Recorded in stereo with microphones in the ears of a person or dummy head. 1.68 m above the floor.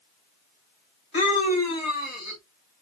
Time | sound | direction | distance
1.1 | a scream | 35° left (ahead or behind) | 1.2 m